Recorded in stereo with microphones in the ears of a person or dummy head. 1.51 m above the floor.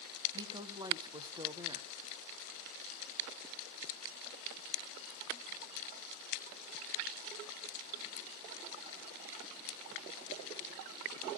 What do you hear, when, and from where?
0.3 s a woman speaking: 20° right (ahead or behind), 1.0 m